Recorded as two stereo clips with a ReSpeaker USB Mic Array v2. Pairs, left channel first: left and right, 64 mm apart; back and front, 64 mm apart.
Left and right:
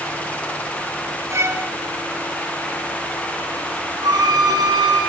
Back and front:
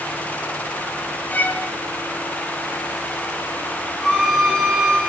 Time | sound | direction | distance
1.3 | a violin | 120° right | 2.5 m
4.0 | a violin | 95° right | 9.5 m